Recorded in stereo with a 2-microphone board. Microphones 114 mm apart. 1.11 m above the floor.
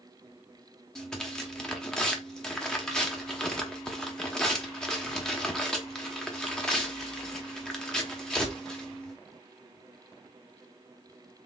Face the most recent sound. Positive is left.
turn(degrees=5)  # may be behind; listen again after turning